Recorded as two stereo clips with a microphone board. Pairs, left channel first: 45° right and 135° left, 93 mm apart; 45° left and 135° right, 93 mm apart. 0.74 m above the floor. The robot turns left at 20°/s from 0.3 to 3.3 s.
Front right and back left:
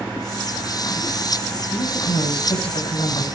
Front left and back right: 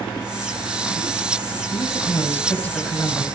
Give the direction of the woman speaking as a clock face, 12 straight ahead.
12 o'clock.